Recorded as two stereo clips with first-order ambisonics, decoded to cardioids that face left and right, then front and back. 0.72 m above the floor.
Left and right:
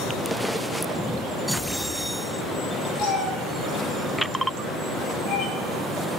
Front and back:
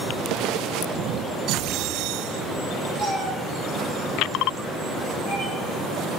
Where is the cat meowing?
110° left, 6 m; by 5.5 s 80° left, 6.5 m.